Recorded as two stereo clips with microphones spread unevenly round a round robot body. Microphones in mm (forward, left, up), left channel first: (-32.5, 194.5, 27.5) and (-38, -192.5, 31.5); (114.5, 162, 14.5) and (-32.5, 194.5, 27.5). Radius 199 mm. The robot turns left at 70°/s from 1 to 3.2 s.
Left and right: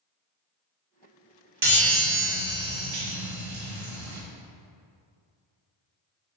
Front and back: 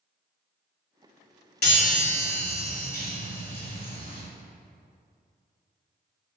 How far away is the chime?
About 1.8 m.